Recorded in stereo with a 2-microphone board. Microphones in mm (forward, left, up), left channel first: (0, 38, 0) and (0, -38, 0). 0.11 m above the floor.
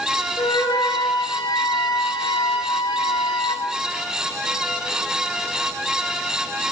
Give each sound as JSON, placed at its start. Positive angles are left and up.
{"t": 0.4, "sound": "a flute", "side_deg": 80, "distance_m": 7.0}